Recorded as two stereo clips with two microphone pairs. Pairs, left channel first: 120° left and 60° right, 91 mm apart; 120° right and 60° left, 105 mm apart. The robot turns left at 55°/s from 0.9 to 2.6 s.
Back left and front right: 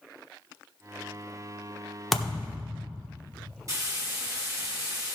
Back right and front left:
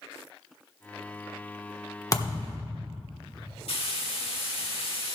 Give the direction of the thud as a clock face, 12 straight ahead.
5 o'clock.